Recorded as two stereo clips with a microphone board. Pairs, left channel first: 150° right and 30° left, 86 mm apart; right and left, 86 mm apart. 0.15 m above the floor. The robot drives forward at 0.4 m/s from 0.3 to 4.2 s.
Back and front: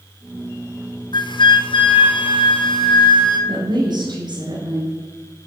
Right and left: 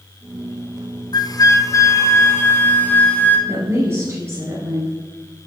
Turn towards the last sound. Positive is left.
turn(degrees=40)